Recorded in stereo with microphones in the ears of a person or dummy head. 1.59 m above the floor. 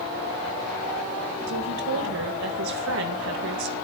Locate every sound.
1.5 s a woman speaking: 65° right (ahead or behind), 2 m